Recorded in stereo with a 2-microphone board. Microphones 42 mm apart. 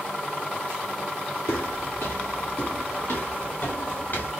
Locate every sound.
1.5 s footsteps: 80° left, 1.5 m; by 4.3 s 50° left (ahead or behind), 3 m